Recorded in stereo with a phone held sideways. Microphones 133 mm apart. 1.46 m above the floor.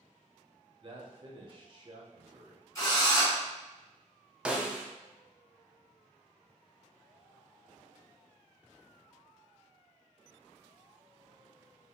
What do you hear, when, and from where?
0.8 s a man speaking: 40° right (ahead or behind), 0.7 m
2.8 s a drill: 25° left (ahead or behind), 1.5 m
4.5 s a snare drum: 10° right (ahead or behind), 0.5 m